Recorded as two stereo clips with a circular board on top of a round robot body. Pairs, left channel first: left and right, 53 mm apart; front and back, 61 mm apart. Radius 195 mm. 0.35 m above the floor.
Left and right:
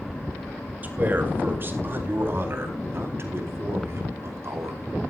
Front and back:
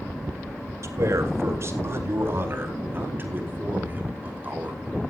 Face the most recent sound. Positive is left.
turn(degrees=-115)